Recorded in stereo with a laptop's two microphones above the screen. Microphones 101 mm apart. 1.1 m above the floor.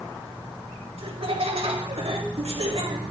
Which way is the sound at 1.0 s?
80° right.